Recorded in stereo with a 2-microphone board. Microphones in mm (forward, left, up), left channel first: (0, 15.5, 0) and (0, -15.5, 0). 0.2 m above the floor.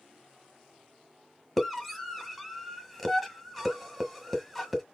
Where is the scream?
5° right (ahead or behind), 1.3 m.